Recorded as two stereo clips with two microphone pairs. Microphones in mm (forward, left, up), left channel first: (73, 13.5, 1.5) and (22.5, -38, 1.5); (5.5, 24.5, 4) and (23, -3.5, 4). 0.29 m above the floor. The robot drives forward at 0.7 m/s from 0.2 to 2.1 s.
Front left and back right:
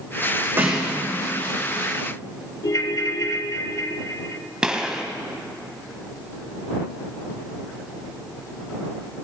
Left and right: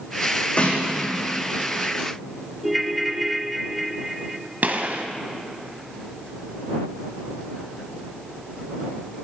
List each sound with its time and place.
0.6 s a snare drum: 165° left, 5 m
2.6 s a ringtone: 30° left, 0.6 m
4.6 s a gunshot: 55° right, 1.3 m